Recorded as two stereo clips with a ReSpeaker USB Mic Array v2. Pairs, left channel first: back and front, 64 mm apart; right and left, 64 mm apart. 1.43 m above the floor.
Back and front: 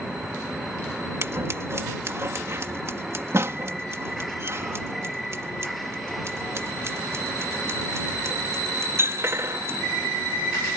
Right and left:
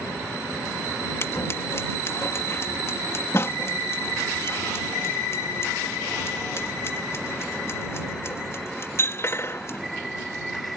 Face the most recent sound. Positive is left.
turn(degrees=-45)